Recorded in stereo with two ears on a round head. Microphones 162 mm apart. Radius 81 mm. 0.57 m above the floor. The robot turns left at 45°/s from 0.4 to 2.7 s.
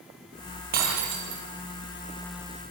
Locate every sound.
0.7 s breaking glass: 50° right, 5.5 m; by 1.4 s 85° right, 5.5 m